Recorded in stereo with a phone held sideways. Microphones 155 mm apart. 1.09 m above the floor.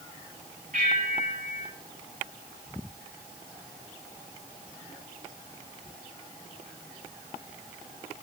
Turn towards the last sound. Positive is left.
turn(degrees=-65)  # may be behind; listen again after turning